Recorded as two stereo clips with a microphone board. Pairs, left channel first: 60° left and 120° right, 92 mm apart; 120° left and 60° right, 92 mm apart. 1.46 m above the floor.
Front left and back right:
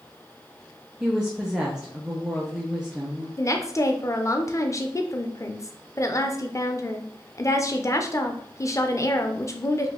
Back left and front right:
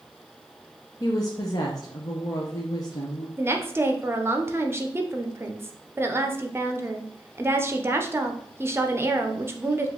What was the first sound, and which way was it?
A woman speaking, 160° left.